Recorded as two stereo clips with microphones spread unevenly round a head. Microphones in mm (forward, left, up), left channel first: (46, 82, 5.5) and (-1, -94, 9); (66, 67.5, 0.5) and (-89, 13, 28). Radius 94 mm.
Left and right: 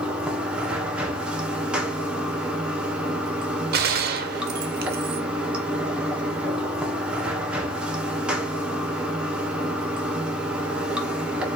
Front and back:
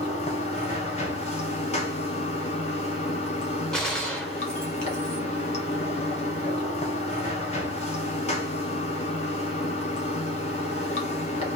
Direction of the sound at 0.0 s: 25° right.